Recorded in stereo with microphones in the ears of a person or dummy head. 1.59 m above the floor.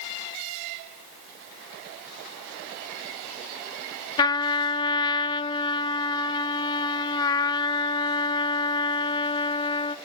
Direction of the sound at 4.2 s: 25° left (ahead or behind).